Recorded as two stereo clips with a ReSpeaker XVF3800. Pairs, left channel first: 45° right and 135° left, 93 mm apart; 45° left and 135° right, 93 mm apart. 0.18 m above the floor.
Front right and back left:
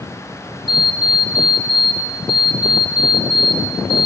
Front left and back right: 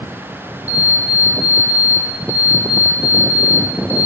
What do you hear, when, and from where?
0.7 s an alarm clock: 60° right, 1.5 m